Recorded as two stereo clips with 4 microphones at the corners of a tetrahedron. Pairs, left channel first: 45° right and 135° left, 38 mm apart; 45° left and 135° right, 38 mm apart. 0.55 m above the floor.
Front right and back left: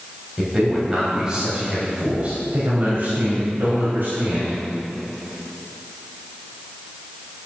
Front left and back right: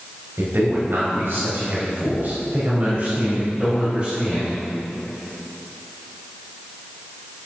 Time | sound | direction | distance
0.4 | a man speaking | 145° right | 3.5 m